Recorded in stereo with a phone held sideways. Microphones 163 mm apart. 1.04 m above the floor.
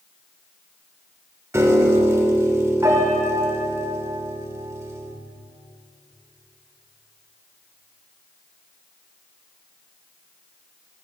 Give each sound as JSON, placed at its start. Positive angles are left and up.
{"t": 1.5, "sound": "a piano", "side_deg": -15, "distance_m": 0.9}